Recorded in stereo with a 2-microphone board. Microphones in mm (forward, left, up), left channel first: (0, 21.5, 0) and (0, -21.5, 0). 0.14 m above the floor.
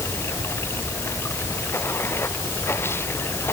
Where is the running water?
75° left (ahead or behind).